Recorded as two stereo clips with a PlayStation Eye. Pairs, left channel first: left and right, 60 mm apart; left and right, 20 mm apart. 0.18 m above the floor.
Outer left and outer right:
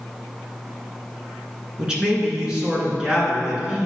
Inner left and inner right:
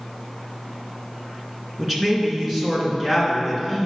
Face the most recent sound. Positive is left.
turn(degrees=-15)  # may be behind; listen again after turning